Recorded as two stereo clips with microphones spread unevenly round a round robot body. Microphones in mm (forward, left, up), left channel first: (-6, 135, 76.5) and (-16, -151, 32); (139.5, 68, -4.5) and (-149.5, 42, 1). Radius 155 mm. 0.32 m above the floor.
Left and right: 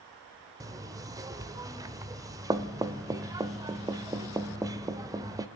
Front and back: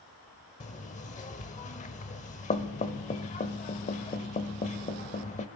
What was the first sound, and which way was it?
Knocking, 40° right.